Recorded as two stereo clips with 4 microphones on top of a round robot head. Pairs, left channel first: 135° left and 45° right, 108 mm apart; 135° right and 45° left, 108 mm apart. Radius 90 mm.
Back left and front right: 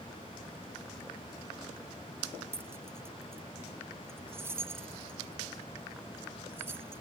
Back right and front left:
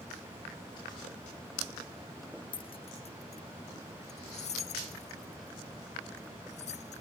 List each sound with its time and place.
2.5 s keys jangling: 110° right; by 7.0 s 115° right